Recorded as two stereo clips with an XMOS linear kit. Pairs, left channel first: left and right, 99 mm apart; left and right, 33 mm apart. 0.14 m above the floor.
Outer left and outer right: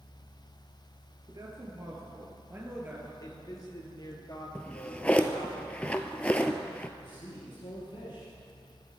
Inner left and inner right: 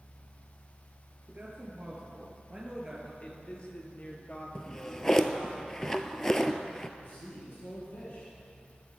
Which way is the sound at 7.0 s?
55° left (ahead or behind).